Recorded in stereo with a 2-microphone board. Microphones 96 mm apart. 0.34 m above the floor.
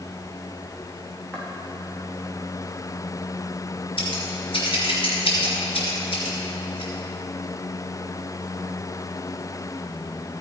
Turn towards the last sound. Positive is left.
turn(degrees=65)  # may be behind; listen again after turning